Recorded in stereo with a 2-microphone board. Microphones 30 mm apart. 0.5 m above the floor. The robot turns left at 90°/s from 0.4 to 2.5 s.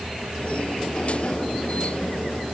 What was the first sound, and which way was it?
Only background noise.